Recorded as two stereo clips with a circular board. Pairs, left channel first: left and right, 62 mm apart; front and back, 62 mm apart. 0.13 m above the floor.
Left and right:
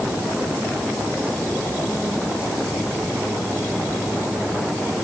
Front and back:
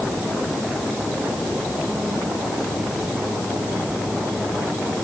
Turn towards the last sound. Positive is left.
No sound to turn to.